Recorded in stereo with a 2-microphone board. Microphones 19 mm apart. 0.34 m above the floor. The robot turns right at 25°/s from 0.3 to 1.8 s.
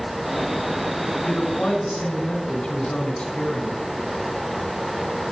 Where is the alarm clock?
I don't hear an alarm clock.